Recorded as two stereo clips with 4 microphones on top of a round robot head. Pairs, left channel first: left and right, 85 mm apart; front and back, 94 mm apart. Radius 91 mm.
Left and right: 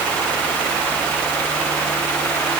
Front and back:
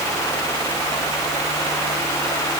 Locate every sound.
Only background noise.